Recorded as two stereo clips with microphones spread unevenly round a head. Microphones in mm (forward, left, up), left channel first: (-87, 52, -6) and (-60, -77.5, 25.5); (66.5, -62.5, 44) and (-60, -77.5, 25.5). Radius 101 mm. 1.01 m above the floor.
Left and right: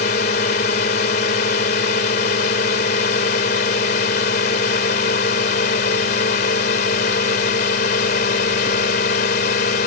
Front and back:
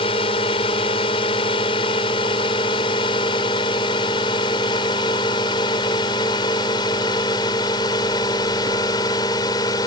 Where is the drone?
70° left; by 9.9 s 75° left.